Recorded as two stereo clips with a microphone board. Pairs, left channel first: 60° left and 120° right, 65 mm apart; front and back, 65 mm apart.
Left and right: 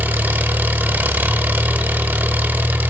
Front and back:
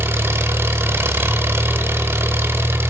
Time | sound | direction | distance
0.0 | an engine running | 165° right | 0.9 m